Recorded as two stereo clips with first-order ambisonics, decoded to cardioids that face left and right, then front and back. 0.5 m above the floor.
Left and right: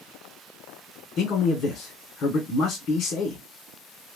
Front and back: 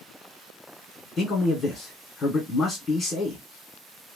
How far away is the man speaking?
About 1.6 m.